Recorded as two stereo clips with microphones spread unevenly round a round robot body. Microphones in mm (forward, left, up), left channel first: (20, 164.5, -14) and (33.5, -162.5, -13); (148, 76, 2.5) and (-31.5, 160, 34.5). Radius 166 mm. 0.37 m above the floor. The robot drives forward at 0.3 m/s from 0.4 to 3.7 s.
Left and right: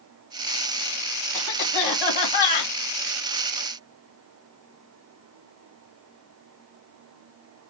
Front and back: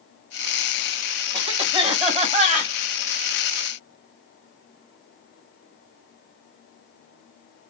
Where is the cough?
90° left, 2.5 m; by 2.7 s 100° left, 2.5 m.